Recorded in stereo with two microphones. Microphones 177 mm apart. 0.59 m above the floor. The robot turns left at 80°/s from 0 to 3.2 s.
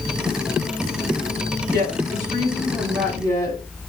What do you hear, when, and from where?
1.7 s a woman speaking: 90° right, 1.5 m; by 3.6 s 150° left, 1.5 m